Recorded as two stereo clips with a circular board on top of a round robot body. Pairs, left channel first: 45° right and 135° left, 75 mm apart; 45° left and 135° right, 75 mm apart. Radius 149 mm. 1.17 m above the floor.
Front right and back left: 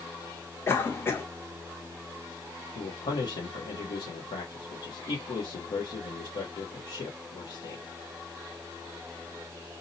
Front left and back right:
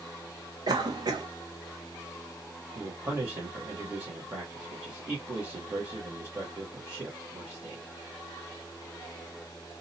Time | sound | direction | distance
0.7 | a cough | 105° right | 1.0 m
2.8 | a man speaking | 65° right | 0.8 m